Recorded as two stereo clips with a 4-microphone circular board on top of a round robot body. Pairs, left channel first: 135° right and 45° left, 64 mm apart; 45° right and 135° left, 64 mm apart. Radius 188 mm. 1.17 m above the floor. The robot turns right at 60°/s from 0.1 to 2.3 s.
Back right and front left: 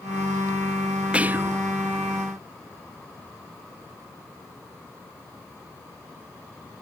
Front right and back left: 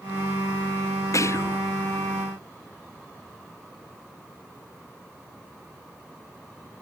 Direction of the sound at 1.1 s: 25° right.